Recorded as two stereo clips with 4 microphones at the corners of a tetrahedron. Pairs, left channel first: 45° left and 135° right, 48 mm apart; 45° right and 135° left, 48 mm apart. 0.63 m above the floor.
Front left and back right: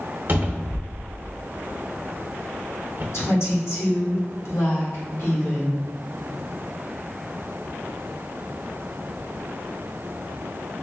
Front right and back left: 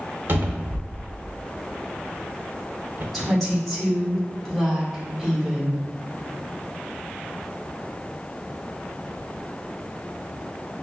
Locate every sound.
0.3 s a cupboard door: 175° left, 0.6 m
3.1 s a woman speaking: 45° left, 1.6 m